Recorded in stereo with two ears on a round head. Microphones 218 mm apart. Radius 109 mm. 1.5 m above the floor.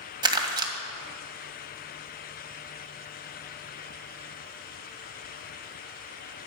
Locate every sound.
0.2 s crumpling: 20° right (ahead or behind), 2.0 m